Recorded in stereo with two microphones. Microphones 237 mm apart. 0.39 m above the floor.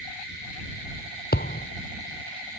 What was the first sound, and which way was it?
A thud, 45° left (ahead or behind).